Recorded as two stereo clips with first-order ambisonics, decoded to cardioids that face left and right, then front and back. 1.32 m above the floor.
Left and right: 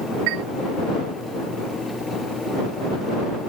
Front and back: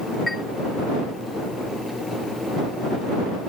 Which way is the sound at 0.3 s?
85° right.